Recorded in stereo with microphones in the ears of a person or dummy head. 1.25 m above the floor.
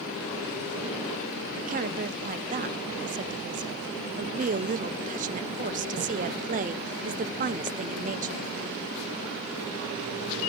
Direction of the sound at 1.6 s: 40° right (ahead or behind).